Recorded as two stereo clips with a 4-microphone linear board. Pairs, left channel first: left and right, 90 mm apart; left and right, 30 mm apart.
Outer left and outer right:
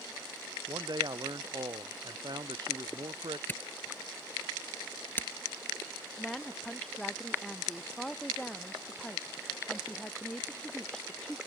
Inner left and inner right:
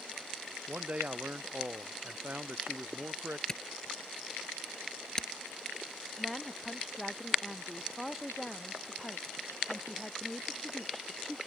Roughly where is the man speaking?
Right.